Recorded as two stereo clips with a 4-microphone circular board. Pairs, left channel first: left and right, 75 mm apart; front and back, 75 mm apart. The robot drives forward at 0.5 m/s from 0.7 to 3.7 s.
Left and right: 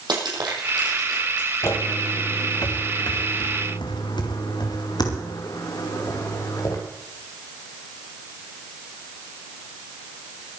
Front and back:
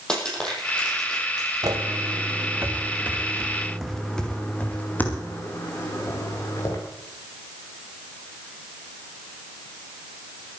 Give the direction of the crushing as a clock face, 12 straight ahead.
3 o'clock.